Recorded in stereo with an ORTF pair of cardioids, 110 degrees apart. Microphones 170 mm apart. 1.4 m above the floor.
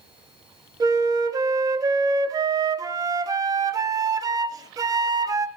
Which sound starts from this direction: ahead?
A flute, at 0.8 s.